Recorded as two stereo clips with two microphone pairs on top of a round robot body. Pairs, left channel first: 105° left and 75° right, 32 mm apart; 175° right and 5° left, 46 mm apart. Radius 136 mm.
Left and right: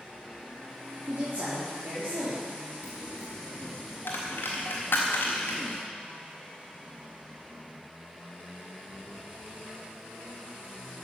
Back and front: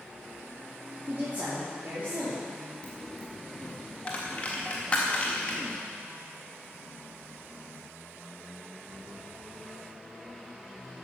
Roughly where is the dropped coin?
Behind left.